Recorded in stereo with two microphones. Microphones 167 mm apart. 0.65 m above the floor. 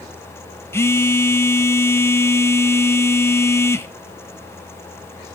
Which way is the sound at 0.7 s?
15° left (ahead or behind).